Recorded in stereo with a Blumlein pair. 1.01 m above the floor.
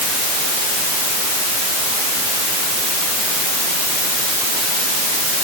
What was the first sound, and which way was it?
Only background noise.